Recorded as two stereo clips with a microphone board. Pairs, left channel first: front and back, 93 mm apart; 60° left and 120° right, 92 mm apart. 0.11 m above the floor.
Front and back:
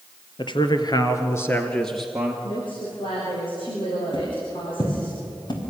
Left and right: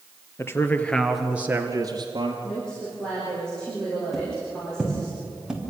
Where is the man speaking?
5° left, 2 m; by 2.3 s 100° right, 2.5 m.